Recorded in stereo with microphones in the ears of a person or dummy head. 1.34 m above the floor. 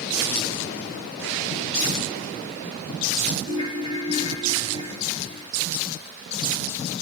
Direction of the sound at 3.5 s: 35° left (ahead or behind).